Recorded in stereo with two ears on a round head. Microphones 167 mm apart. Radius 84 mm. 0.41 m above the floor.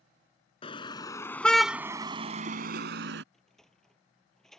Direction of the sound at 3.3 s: 5° left (ahead or behind).